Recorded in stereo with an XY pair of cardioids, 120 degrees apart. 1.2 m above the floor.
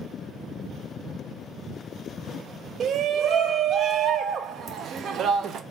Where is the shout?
50° right, 0.6 m.